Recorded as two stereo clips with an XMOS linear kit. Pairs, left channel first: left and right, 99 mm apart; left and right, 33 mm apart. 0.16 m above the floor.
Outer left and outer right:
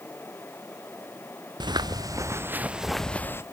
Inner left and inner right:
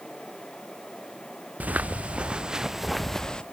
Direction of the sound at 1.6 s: 45° right (ahead or behind).